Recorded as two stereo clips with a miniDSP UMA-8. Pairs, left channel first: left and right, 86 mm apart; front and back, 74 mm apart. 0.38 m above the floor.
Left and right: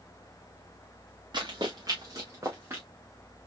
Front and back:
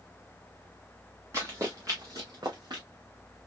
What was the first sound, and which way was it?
Running footsteps, 125° right.